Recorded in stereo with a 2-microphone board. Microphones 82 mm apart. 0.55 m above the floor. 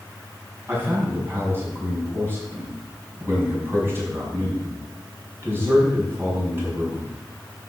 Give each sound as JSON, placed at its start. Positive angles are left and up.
{"t": 0.7, "sound": "a man speaking", "side_deg": -30, "distance_m": 5.0}